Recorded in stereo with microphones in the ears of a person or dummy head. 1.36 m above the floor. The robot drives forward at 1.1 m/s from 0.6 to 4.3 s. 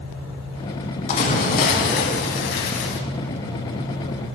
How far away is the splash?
About 3 m.